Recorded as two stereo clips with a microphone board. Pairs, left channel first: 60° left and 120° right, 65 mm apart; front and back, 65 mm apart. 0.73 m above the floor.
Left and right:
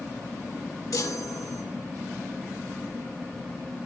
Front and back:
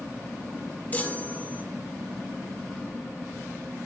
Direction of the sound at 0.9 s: 60° left.